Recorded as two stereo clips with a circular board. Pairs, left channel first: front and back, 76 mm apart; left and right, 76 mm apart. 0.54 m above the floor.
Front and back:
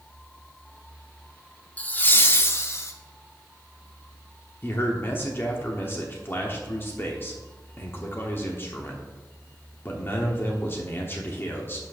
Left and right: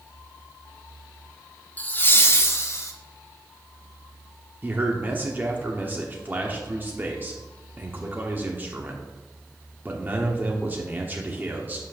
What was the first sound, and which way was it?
Laughter, 45° left.